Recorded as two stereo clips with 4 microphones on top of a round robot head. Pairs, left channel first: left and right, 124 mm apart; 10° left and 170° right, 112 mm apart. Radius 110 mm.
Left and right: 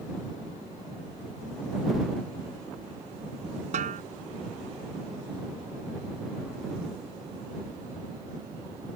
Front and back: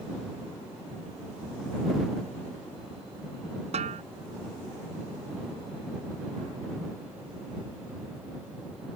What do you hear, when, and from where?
3.7 s a snare drum: 130° right